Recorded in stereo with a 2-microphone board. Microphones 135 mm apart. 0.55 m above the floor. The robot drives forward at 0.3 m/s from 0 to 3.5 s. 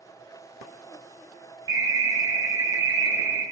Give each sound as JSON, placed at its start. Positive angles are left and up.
{"t": 1.7, "sound": "an alarm", "side_deg": -25, "distance_m": 0.7}